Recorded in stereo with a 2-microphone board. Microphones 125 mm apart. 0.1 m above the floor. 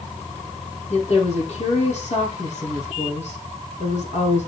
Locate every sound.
0.9 s a woman speaking: 60° left (ahead or behind), 4.5 m